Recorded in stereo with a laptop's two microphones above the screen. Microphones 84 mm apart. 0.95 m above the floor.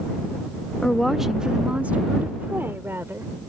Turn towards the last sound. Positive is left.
turn(degrees=-30)  # may be behind; listen again after turning